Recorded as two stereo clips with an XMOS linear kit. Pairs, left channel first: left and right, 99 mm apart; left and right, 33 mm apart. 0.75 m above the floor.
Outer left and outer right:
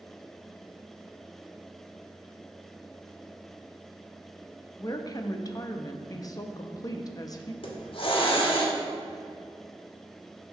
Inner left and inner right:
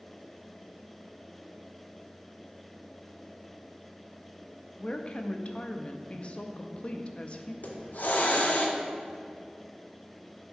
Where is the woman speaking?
40° left (ahead or behind), 0.6 m.